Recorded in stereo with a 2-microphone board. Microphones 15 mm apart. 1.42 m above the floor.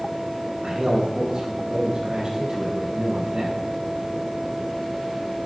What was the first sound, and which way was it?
A man speaking, 55° right (ahead or behind).